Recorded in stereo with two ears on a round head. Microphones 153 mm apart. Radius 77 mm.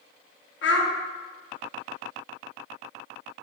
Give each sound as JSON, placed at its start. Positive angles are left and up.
{"t": 0.6, "sound": "a child speaking", "side_deg": 75, "distance_m": 0.8}